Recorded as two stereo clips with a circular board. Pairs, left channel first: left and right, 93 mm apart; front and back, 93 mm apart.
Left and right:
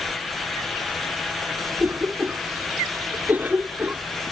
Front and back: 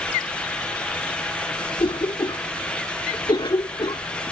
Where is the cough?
20° right.